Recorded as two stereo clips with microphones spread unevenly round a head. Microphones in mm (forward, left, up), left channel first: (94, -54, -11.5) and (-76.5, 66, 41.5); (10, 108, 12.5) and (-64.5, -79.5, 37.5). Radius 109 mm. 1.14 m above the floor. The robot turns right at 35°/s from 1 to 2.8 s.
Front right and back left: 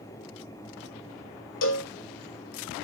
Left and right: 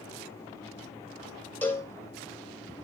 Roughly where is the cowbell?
Ahead.